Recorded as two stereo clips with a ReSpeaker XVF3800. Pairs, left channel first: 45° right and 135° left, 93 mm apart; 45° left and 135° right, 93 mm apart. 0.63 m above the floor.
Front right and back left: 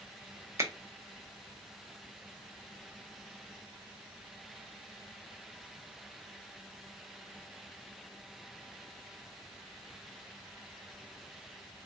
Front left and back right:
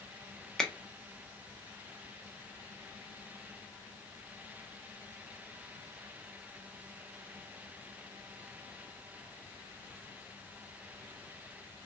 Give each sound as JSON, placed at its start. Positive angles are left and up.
{"t": 0.6, "sound": "a finger snap", "azimuth_deg": 120, "distance_m": 0.5}